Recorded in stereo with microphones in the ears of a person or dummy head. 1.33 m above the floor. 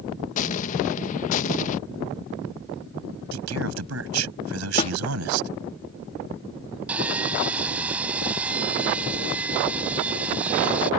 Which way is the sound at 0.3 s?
45° left (ahead or behind).